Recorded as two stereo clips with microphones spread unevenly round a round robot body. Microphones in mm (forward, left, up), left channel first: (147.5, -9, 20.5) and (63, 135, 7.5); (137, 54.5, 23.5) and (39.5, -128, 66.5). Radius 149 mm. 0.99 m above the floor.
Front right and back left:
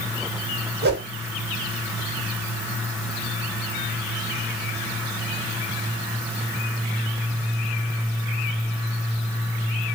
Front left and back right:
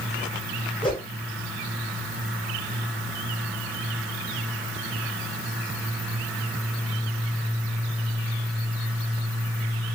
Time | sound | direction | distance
0.8 | a whoosh | 145° left | 1.7 m